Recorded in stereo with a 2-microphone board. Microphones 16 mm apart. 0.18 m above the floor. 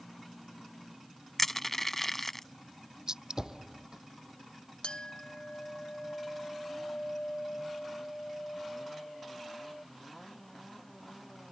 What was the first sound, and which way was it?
Crushing, 15° left (ahead or behind).